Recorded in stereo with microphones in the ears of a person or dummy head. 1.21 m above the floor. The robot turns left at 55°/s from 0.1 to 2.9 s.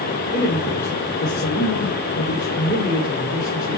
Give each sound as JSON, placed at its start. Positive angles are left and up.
{"t": 0.3, "sound": "a man speaking", "azimuth_deg": 160, "distance_m": 3.0}